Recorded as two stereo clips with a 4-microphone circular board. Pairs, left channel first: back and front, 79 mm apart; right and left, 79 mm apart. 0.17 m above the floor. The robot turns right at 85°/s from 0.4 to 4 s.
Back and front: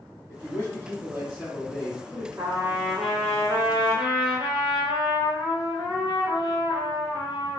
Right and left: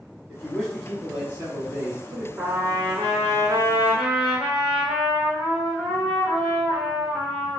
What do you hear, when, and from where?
0.3 s a man speaking: 30° right, 1.5 m; by 2.3 s 125° left, 1.5 m
2.4 s a trumpet: 35° left, 1.1 m; by 7.6 s 175° left, 1.1 m